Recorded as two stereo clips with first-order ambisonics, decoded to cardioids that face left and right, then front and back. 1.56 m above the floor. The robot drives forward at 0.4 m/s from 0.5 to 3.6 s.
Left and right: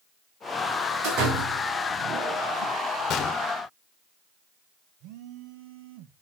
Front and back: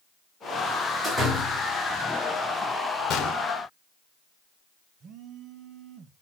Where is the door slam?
85° right, 7.5 m; by 2.7 s 90° right, 7.5 m.